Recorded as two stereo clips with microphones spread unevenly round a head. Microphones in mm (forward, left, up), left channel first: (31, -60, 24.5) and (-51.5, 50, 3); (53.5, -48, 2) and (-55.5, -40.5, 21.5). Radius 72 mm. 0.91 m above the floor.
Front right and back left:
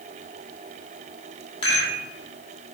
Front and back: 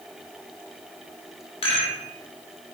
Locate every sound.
1.6 s a rattle: 5° left, 1.7 m